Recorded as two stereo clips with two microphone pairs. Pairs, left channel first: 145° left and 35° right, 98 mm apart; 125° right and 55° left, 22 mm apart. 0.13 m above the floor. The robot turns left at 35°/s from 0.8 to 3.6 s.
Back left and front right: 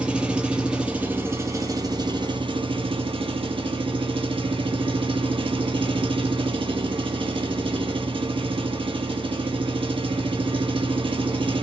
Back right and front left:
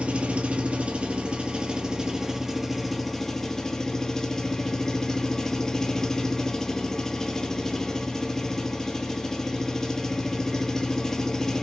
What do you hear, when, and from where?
0.0 s an engine running: 45° left, 0.7 m; by 11.6 s 55° right, 0.7 m